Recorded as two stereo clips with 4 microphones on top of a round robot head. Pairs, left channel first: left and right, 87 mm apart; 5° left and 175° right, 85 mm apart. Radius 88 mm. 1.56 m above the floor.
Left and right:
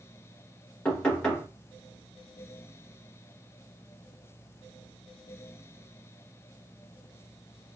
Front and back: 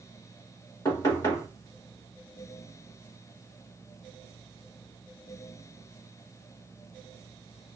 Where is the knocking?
20° left, 0.8 m.